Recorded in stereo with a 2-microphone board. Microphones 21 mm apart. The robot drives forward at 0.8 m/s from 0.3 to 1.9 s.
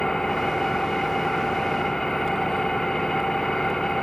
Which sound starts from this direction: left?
An engine running, at 0.0 s.